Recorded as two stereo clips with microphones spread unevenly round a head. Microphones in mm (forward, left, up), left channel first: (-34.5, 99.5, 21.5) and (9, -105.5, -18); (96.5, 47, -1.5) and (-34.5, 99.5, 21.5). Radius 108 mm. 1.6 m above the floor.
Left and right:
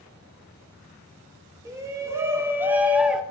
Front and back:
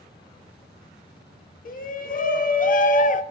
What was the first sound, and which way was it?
A shout, straight ahead.